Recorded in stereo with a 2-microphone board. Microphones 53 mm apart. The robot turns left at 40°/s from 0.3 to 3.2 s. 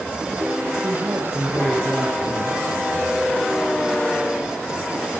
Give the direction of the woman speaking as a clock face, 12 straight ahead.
4 o'clock.